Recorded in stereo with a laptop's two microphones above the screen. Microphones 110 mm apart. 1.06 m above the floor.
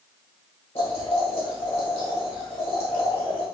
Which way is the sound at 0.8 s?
55° left (ahead or behind).